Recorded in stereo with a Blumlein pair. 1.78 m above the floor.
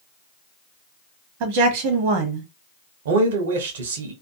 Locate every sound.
1.4 s a woman speaking: 50° right, 1.0 m
3.0 s a man speaking: 60° right, 1.0 m